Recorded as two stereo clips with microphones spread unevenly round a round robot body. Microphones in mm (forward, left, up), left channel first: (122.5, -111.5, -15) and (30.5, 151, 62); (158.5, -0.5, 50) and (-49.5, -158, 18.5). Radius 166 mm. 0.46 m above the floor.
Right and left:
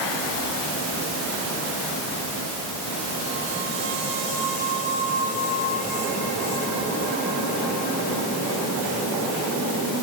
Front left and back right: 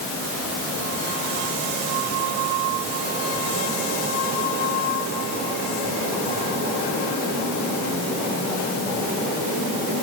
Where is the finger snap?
I don't hear a finger snap.